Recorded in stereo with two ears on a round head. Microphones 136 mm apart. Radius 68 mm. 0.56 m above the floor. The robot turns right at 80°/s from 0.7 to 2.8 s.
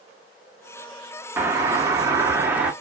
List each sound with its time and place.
1.4 s a doorbell: 15° right (ahead or behind), 1.0 m; by 2.7 s 10° right (ahead or behind), 1.0 m